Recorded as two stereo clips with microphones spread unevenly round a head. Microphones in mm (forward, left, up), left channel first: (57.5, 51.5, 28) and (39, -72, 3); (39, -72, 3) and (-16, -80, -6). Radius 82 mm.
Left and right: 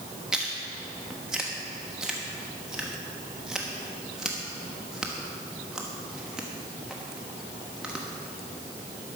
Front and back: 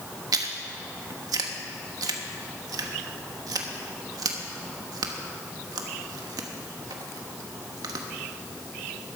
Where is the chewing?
170° left, 1.0 m.